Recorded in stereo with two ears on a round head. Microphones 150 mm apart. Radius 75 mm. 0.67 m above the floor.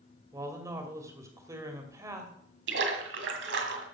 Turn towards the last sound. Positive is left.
turn(degrees=-80)